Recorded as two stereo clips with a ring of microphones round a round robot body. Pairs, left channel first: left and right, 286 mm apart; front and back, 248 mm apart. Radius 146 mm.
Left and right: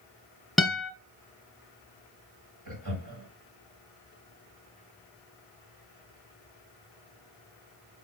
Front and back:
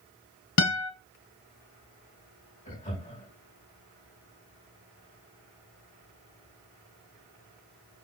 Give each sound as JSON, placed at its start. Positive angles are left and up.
{"t": 0.6, "sound": "a guitar", "azimuth_deg": 0, "distance_m": 1.3}
{"t": 2.6, "sound": "laughter", "azimuth_deg": -75, "distance_m": 5.0}